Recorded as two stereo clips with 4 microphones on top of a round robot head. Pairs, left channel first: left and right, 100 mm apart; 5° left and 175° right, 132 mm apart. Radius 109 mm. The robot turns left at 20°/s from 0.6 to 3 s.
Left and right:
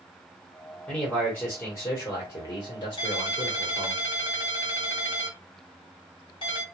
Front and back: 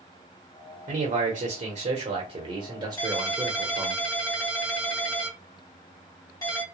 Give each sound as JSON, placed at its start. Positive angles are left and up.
{"t": 0.9, "sound": "a man speaking", "azimuth_deg": 170, "distance_m": 1.0}
{"t": 3.0, "sound": "a ringtone", "azimuth_deg": 65, "distance_m": 1.8}